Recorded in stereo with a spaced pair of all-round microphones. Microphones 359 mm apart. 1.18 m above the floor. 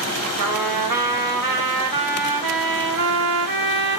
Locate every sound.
0.4 s a trumpet: 65° right (ahead or behind), 0.6 m